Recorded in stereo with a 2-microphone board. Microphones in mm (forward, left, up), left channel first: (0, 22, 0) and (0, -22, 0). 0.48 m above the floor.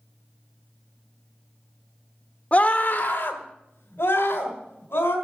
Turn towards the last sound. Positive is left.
turn(degrees=75)  # may be behind; listen again after turning